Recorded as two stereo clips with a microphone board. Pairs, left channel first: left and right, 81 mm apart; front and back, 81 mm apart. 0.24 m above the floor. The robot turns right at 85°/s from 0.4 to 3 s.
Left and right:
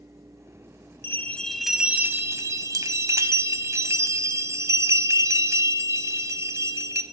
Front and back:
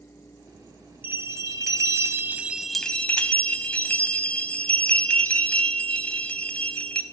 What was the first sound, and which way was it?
A bell, 130° left.